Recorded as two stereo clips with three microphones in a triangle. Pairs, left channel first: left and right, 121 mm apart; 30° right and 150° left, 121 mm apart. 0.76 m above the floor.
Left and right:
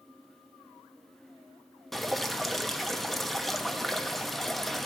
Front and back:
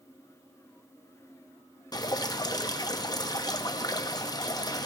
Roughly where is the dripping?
Ahead.